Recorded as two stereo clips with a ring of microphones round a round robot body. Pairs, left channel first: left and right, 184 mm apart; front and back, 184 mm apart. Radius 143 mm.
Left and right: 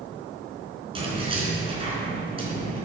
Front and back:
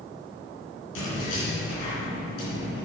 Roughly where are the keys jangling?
Ahead right.